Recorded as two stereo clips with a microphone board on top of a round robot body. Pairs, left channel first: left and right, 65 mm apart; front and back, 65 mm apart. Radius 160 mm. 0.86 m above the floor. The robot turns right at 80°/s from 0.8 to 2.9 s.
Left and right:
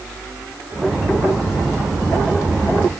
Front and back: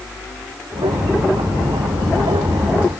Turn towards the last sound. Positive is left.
No sound to turn to.